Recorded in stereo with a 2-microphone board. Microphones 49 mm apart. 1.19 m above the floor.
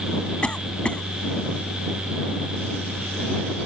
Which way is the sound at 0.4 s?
20° left (ahead or behind).